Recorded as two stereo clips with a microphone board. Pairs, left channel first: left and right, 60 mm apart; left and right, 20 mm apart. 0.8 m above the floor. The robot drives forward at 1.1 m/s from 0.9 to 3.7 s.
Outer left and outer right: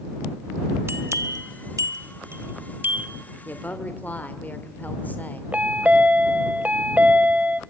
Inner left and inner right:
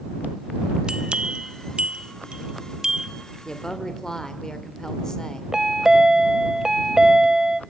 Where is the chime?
25° right (ahead or behind), 0.9 m.